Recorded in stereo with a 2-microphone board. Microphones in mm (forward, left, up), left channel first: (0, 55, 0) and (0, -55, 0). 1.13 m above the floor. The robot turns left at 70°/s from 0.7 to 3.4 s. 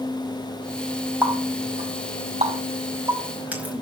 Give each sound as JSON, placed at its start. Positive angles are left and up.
{"t": 1.2, "sound": "a running tap", "side_deg": -15, "distance_m": 5.0}